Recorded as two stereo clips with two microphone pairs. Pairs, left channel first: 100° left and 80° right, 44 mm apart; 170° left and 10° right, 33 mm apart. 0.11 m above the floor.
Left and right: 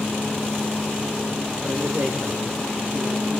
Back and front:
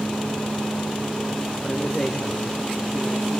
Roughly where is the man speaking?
Right.